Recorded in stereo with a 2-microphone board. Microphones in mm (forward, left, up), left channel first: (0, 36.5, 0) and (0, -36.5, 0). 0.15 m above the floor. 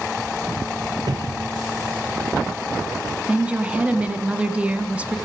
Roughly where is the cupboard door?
Right.